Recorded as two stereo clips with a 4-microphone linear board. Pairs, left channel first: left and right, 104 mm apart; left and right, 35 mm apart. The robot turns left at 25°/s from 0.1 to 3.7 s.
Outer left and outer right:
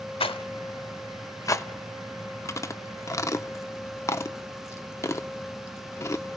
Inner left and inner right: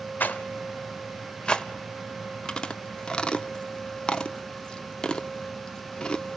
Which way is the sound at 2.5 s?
30° left (ahead or behind).